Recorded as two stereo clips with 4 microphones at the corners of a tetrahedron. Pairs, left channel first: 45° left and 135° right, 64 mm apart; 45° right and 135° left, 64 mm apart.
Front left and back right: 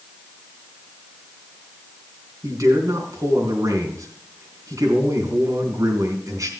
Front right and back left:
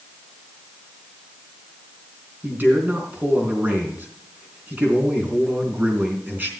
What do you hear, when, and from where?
2.4 s a man speaking: 165° right, 3.5 m